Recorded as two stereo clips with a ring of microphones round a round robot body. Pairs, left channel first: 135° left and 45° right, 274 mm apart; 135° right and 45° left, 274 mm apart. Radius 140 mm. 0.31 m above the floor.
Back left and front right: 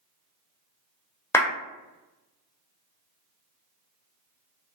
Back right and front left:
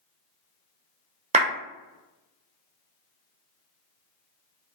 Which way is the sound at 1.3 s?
65° left.